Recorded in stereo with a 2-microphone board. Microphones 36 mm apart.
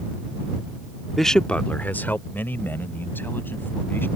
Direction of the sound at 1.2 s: Centre (ahead or behind).